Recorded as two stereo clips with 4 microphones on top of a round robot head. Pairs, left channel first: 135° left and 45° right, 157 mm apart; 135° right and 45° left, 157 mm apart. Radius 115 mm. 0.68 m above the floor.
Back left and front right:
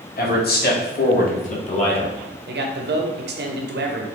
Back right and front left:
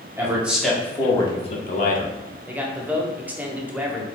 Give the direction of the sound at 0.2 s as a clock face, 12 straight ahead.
8 o'clock.